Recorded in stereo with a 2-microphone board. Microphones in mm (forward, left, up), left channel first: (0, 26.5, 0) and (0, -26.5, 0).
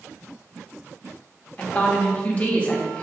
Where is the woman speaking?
25° left (ahead or behind), 0.6 m.